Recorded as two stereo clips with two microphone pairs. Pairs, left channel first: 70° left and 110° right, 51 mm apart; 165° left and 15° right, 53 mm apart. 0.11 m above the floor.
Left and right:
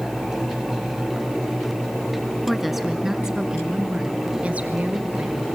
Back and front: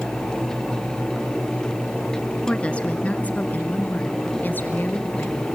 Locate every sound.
2.5 s a woman speaking: 155° left, 1.4 m; by 5.5 s 160° right, 2.5 m